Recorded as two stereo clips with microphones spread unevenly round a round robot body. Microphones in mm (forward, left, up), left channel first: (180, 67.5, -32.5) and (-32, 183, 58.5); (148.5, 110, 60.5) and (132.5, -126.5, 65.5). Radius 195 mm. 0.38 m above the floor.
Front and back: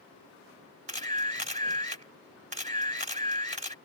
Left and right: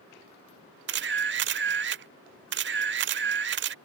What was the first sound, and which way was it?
A camera shutter, 130° right.